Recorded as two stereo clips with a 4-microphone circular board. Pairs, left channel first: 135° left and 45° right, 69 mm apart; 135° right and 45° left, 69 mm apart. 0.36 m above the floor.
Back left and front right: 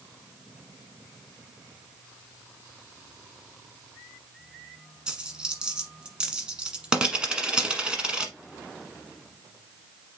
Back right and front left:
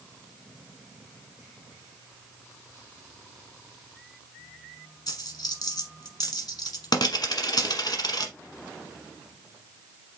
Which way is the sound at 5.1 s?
120° right.